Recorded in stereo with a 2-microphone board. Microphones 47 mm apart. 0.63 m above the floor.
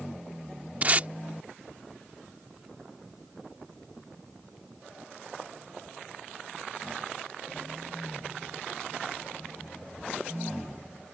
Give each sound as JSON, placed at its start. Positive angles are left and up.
{"t": 0.8, "sound": "tape being pulled", "side_deg": -35}